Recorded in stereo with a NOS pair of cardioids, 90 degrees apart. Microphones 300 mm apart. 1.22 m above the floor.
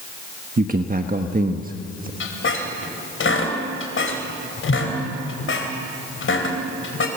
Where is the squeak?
45° left, 4 m.